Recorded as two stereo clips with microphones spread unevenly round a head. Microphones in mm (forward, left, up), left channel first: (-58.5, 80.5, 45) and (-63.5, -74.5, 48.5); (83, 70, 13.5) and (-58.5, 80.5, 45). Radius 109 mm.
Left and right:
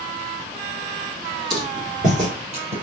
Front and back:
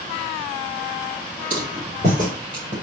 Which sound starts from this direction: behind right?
Footsteps, at 1.5 s.